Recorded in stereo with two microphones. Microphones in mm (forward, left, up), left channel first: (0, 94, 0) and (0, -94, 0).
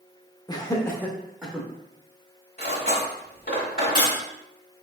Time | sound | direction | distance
0.5 | laughter | 20° left (ahead or behind) | 0.7 m
2.6 | cutlery clinking | 55° left (ahead or behind) | 1.7 m